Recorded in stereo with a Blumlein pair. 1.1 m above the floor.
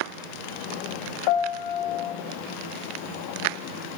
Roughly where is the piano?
Ahead left.